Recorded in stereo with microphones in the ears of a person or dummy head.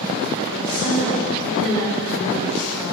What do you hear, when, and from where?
0.5 s a woman speaking: 5° left (ahead or behind), 1.2 m